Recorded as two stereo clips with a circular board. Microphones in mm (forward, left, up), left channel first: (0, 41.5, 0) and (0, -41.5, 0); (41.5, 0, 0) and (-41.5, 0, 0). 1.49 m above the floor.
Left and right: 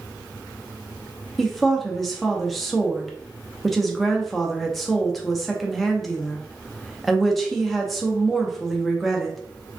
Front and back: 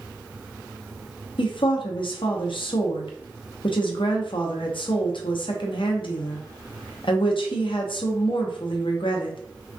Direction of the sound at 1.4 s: Straight ahead.